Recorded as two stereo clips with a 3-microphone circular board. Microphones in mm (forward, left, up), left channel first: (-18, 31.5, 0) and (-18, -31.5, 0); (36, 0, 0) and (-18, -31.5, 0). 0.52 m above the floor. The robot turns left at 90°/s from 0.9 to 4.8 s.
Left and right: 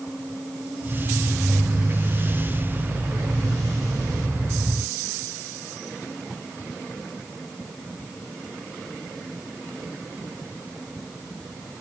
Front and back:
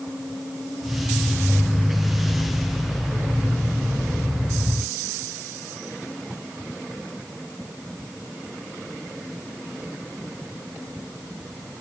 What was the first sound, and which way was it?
Only background noise.